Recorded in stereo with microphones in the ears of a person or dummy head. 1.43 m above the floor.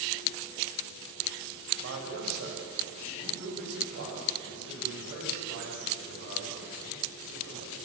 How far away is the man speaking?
About 7 m.